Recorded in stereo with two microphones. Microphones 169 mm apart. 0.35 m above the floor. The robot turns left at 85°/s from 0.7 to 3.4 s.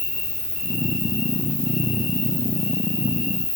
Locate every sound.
0.0 s an insect: 85° left, 5.5 m; by 3.6 s 140° right, 5.5 m